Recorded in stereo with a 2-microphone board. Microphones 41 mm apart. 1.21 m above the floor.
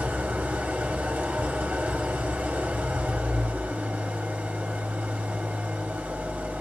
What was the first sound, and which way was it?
An engine running, 45° right (ahead or behind).